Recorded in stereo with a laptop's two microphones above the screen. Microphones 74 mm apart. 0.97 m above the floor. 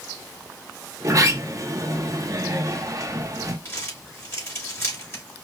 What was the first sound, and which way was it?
A sliding door, 50° right (ahead or behind).